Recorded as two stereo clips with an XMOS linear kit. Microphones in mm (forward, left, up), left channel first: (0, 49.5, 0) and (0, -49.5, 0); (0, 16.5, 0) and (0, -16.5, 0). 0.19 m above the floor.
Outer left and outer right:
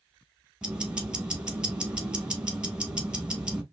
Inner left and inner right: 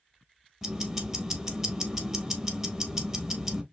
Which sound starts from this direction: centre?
Ticking, at 0.6 s.